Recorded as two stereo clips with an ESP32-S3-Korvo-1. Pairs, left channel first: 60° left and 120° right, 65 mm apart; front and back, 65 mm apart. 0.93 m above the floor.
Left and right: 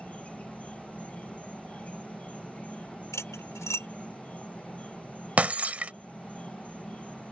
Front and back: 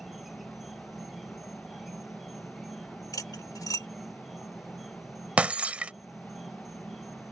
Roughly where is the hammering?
No hammering in this recording.